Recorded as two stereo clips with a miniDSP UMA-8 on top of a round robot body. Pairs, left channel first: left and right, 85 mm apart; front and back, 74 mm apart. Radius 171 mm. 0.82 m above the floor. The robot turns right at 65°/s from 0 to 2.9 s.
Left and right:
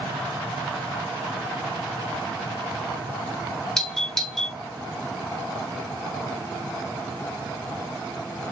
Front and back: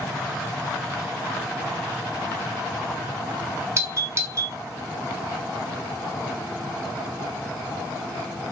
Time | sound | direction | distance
3.8 | a doorbell | 170° left | 1.1 m